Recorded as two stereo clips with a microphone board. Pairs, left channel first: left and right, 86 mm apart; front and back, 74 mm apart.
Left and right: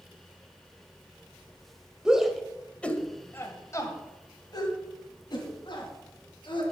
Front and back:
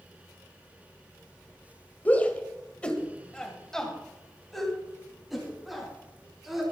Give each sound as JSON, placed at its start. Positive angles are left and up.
{"t": 2.0, "sound": "a shout", "azimuth_deg": -25, "distance_m": 1.6}